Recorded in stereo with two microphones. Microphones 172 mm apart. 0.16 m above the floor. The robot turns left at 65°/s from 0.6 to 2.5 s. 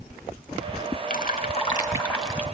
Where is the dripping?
80° left, 1.4 m; by 2.5 s 10° right, 1.4 m.